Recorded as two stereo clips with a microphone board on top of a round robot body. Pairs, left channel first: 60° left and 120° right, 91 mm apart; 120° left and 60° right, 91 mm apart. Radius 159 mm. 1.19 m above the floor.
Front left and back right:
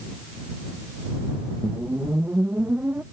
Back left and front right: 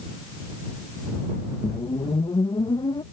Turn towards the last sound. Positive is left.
turn(degrees=165)